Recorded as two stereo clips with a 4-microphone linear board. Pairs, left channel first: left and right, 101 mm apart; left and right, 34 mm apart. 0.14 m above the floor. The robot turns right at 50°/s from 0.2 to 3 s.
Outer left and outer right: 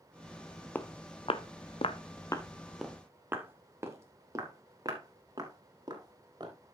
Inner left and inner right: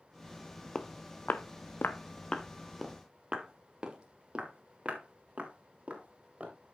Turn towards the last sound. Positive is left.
turn(degrees=-40)  # may be behind; listen again after turning